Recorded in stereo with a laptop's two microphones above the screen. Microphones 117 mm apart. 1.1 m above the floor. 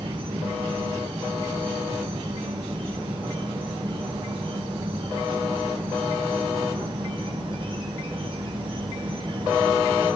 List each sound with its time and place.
0.0 s an insect: 45° right (ahead or behind), 3.5 m